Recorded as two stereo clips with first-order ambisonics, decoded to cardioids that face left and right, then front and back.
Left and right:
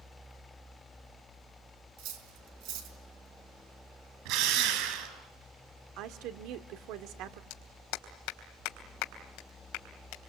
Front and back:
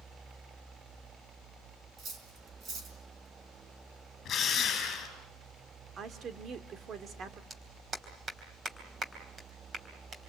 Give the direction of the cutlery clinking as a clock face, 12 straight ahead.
4 o'clock.